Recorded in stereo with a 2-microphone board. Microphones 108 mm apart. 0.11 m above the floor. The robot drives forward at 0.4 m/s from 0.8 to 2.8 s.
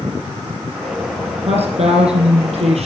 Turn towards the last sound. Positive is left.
turn(degrees=-65)  # may be behind; listen again after turning